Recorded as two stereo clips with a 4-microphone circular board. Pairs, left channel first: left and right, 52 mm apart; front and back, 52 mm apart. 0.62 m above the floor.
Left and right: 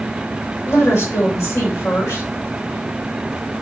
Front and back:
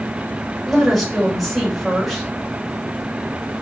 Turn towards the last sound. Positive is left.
turn(degrees=95)